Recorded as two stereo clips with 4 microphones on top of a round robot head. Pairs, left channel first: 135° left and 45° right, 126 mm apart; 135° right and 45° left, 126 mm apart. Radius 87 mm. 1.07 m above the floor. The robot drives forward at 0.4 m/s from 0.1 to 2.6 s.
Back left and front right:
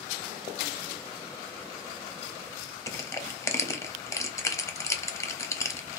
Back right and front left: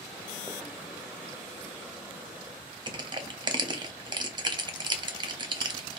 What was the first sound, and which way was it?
Crushing, 80° left.